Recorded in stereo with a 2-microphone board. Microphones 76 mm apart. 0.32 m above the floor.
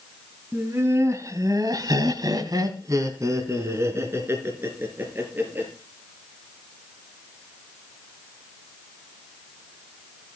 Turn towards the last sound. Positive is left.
turn(degrees=-25)  # may be behind; listen again after turning